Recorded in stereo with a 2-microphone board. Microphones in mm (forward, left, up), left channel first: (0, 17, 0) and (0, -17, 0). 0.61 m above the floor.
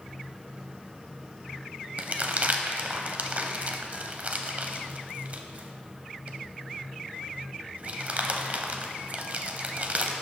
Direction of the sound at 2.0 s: 45° right (ahead or behind).